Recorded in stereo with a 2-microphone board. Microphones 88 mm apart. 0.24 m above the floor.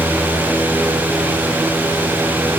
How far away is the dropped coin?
I don't hear a dropped coin.